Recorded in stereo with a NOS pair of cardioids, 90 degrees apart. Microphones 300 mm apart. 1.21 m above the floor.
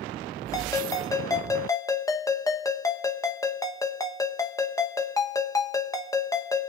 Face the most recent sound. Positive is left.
turn(degrees=10)